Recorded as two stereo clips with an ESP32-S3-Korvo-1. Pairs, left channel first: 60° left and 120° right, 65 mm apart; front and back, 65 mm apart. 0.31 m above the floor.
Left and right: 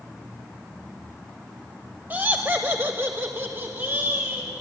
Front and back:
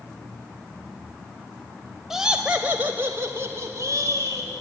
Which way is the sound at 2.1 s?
105° right.